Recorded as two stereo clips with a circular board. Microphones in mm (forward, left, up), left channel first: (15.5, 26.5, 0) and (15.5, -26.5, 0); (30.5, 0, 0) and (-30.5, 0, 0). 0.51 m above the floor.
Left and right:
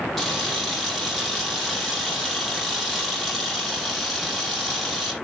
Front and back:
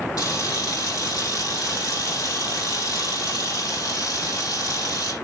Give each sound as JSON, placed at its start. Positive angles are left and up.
{"t": 0.2, "sound": "a camera shutter", "azimuth_deg": 5, "distance_m": 5.5}